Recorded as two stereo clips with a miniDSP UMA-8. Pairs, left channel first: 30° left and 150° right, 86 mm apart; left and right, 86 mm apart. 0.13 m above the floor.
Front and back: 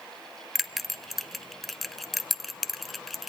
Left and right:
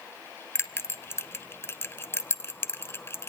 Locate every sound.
0.6 s a bell: 120° left, 0.8 m